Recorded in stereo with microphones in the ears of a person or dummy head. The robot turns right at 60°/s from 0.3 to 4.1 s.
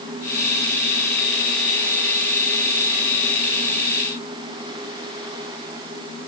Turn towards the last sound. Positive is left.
No sound to turn to.